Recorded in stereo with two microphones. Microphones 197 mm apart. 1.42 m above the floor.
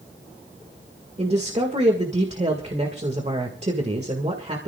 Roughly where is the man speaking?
Right.